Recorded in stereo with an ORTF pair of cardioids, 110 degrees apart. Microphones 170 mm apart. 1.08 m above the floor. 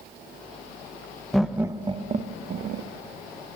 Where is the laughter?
Straight ahead, 1.0 m; by 2.9 s 65° right, 1.4 m.